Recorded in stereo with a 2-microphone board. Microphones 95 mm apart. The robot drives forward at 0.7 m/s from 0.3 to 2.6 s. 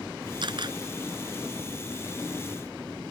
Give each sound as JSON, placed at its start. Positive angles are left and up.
{"t": 0.4, "sound": "a camera shutter", "side_deg": -55}